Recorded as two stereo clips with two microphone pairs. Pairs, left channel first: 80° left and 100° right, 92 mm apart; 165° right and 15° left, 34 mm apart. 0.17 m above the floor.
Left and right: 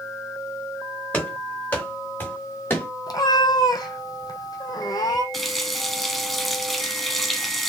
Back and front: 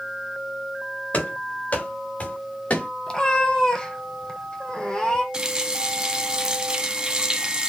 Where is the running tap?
5° right, 0.8 m.